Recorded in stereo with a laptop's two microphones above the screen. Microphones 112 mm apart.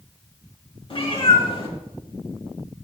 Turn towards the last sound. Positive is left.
turn(degrees=50)  # may be behind; listen again after turning